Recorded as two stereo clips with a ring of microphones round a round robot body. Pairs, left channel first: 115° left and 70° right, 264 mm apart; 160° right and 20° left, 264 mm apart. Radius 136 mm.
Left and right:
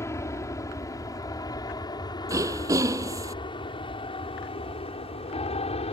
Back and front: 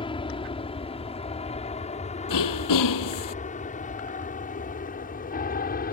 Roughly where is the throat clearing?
Behind right.